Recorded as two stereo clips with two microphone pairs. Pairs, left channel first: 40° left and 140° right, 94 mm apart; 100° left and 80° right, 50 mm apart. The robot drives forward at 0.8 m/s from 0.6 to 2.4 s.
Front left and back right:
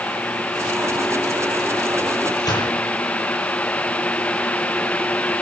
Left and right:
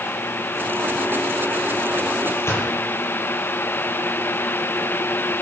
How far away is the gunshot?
About 9 m.